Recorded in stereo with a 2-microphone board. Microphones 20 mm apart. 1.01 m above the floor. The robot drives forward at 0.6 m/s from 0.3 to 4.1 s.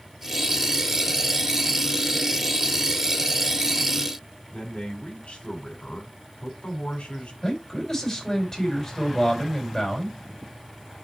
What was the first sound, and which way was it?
A man speaking, 80° left.